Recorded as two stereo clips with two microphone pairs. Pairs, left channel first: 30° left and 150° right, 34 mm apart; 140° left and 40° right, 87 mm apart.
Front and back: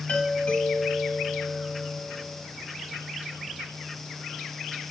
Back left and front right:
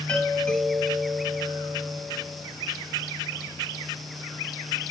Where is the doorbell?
65° left, 3 m.